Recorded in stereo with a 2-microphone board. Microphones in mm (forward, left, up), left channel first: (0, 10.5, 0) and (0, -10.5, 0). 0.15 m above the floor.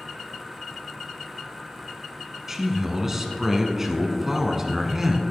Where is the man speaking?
15° right (ahead or behind), 1.2 m.